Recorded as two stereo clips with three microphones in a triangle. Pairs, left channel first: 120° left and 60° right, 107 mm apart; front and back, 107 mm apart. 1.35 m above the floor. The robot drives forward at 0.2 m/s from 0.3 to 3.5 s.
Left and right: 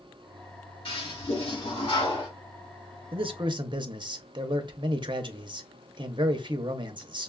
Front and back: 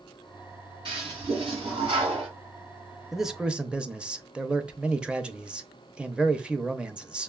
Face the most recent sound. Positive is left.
turn(degrees=-100)